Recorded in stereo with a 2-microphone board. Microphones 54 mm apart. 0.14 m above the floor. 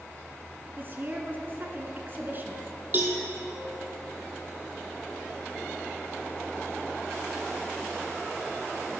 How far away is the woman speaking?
About 1.3 m.